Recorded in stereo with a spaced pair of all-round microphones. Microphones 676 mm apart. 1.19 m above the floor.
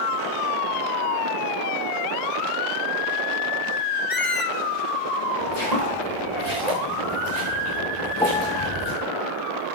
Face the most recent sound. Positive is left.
turn(degrees=5)  # may be behind; listen again after turning